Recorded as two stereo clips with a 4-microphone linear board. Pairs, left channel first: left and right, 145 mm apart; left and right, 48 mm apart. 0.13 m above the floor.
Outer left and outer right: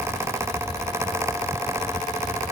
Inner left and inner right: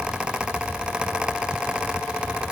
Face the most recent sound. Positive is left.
No sound to turn to.